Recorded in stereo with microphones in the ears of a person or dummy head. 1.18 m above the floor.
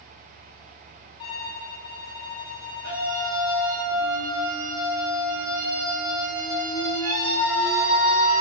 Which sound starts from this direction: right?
A scream, at 2.8 s.